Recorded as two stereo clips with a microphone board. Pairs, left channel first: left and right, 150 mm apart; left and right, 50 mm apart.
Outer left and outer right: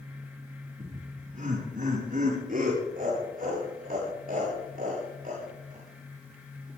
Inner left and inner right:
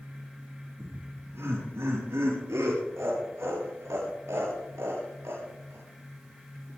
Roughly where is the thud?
I don't hear a thud.